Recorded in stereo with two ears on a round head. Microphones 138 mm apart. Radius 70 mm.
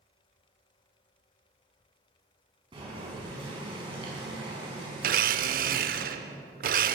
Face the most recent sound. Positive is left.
turn(degrees=-60)  # may be behind; listen again after turning